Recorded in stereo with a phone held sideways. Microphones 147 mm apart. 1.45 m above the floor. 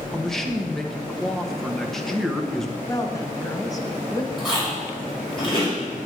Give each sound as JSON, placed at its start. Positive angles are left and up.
{"t": 0.1, "sound": "a man speaking", "side_deg": 0, "distance_m": 1.3}
{"t": 2.9, "sound": "a woman speaking", "side_deg": 25, "distance_m": 1.3}
{"t": 4.4, "sound": "chewing", "side_deg": 35, "distance_m": 5.5}